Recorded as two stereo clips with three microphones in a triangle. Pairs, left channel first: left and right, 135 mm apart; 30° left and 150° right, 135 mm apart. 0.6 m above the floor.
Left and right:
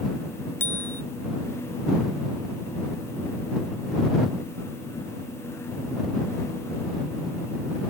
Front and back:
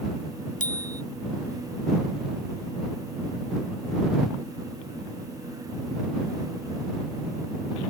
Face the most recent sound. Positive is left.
turn(degrees=15)